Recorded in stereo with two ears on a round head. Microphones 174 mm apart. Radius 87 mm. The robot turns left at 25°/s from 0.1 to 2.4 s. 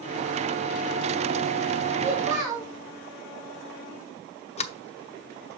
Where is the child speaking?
10° right (ahead or behind), 5 m; by 2.7 s 20° right (ahead or behind), 5 m.